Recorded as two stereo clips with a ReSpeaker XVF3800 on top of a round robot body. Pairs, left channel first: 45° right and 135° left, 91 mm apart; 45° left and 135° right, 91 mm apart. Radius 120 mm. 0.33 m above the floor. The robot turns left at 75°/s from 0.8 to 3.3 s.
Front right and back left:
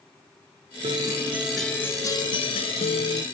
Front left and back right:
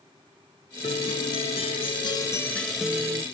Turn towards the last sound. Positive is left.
turn(degrees=-85)